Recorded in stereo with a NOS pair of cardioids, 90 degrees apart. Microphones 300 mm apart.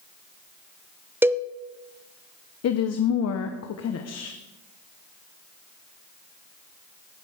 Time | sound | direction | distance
1.2 | a cowbell | 10° right | 0.6 m
2.6 | a woman speaking | 60° left | 1.2 m